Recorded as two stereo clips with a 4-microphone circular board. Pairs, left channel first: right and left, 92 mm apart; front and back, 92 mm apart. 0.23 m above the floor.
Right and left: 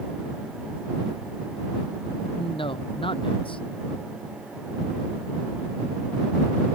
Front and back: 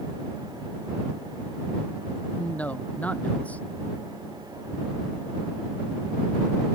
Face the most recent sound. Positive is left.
turn(degrees=-75)